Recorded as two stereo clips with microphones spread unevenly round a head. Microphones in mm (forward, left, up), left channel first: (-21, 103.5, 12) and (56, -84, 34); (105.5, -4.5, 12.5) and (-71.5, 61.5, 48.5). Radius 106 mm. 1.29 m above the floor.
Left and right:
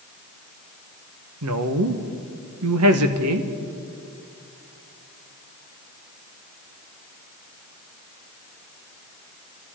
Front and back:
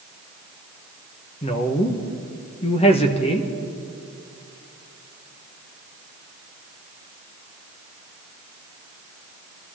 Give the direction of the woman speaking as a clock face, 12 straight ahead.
3 o'clock.